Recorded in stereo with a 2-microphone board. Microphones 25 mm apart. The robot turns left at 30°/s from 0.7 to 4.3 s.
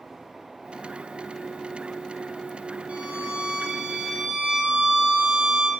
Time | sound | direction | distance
2.9 | a violin | 115° right | 2 m